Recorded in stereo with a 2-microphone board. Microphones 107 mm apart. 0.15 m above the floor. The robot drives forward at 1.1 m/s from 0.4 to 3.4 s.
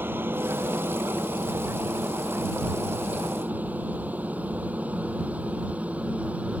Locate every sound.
0.0 s a helicopter: 20° right (ahead or behind); by 6.6 s 10° right (ahead or behind)